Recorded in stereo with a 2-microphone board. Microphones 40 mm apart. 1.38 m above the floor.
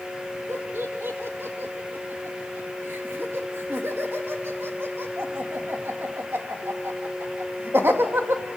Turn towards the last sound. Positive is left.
turn(degrees=-75)  # may be behind; listen again after turning